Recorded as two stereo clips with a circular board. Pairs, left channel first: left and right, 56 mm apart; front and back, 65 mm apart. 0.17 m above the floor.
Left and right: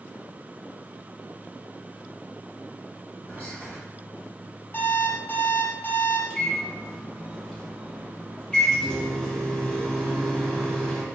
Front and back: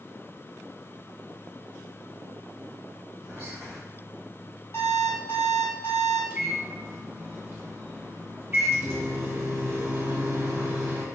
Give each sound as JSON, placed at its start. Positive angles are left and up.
{"t": 3.3, "sound": "whispering", "azimuth_deg": 55, "distance_m": 1.7}
{"t": 4.7, "sound": "an alarm clock", "azimuth_deg": 40, "distance_m": 1.9}
{"t": 6.3, "sound": "a microwave", "azimuth_deg": 155, "distance_m": 0.9}